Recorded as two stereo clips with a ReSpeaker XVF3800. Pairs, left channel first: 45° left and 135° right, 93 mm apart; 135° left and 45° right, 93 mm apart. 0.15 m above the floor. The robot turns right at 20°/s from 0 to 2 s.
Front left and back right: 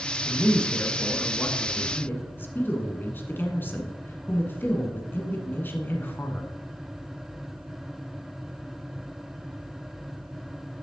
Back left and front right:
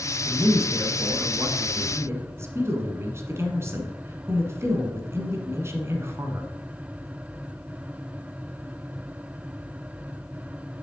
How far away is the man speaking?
About 1.2 m.